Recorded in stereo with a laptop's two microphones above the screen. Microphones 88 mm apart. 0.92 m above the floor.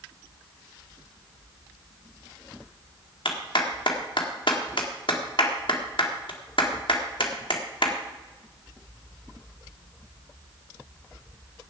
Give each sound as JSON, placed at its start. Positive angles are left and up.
{"t": 3.2, "sound": "a clap", "side_deg": 70, "distance_m": 1.6}